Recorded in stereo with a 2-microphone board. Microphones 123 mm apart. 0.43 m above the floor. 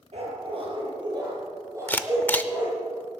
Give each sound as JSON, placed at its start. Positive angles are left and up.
{"t": 0.1, "sound": "a dog barking", "side_deg": -55, "distance_m": 4.0}
{"t": 1.9, "sound": "a camera shutter", "side_deg": 15, "distance_m": 0.6}